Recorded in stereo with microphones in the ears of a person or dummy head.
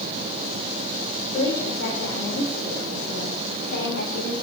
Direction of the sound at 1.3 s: 65° left (ahead or behind).